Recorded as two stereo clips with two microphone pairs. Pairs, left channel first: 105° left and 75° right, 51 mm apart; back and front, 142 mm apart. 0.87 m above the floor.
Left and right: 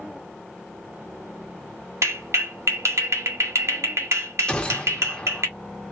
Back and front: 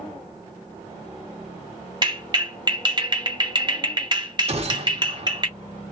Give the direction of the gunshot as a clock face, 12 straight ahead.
11 o'clock.